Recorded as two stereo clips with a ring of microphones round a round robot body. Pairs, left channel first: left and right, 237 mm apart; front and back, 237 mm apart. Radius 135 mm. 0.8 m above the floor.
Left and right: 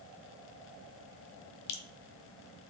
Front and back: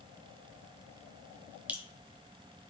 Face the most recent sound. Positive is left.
turn(degrees=95)